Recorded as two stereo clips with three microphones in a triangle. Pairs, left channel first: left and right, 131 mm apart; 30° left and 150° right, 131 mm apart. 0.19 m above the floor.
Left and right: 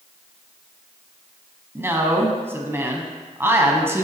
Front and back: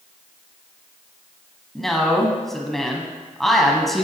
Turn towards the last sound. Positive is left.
turn(degrees=-55)